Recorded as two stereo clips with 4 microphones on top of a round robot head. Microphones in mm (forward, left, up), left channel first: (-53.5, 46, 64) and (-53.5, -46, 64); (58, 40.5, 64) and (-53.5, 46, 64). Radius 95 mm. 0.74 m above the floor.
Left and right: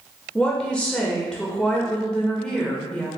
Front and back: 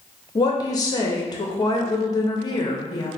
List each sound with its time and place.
0.3 s a woman speaking: 15° left, 0.7 m